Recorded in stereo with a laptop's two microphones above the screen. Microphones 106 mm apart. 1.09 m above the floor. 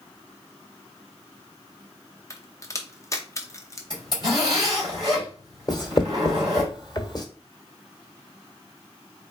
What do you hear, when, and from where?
2.3 s a crack: 30° left (ahead or behind), 0.6 m
3.9 s a zipper: 40° left (ahead or behind), 2.5 m
5.7 s writing: 35° left (ahead or behind), 1.2 m